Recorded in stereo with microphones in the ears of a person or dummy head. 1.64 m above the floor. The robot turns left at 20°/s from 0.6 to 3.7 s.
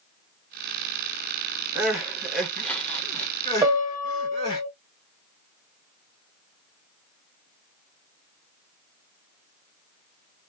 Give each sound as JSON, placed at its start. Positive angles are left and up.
{"t": 1.8, "sound": "crying", "side_deg": -5, "distance_m": 1.3}
{"t": 3.6, "sound": "a piano", "side_deg": -15, "distance_m": 0.8}